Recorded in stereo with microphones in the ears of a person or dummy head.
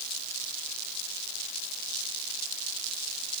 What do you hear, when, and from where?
Only background noise.